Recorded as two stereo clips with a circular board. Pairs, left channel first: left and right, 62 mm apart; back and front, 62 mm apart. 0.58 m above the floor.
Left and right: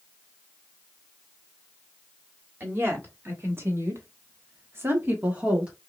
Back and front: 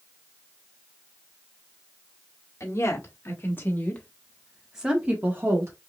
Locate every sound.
2.6 s a woman speaking: 140° right, 3 m; by 5.7 s 20° right, 1.8 m